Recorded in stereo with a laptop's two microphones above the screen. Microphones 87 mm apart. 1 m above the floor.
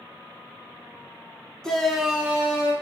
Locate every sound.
1.6 s a shout: 10° left (ahead or behind), 1.0 m; by 2.7 s 25° right (ahead or behind), 1.0 m